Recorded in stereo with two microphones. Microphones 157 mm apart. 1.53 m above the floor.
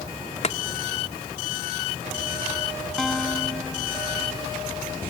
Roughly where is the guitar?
Centre.